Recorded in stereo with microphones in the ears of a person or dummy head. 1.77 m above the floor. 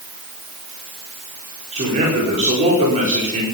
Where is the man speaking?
35° right (ahead or behind), 4.5 m.